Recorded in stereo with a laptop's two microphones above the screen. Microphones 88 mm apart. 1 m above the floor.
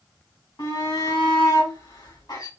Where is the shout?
50° left (ahead or behind), 1.9 m.